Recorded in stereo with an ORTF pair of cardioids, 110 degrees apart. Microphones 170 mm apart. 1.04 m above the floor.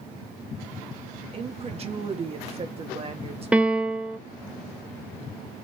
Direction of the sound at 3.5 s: 5° right.